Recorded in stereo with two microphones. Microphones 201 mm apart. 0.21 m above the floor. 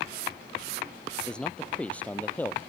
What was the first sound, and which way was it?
A man speaking, 5° left (ahead or behind).